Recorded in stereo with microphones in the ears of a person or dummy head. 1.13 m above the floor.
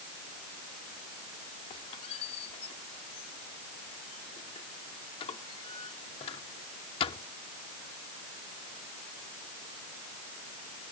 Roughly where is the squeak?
Left.